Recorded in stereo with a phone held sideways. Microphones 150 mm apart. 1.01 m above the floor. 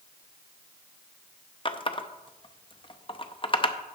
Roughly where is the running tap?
Left.